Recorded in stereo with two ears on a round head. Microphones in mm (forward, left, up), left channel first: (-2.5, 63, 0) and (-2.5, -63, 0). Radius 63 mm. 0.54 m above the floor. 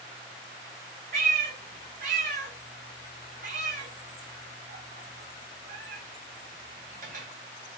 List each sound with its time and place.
1.1 s a cat meowing: 65° right (ahead or behind), 1.3 m